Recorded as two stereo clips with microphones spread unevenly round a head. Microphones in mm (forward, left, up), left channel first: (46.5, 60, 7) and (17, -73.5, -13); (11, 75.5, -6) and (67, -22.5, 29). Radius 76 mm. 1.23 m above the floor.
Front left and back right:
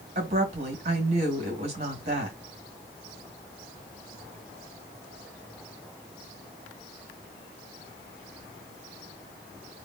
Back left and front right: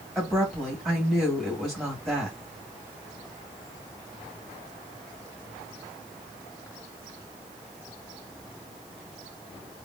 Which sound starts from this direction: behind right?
A woman speaking, at 0.1 s.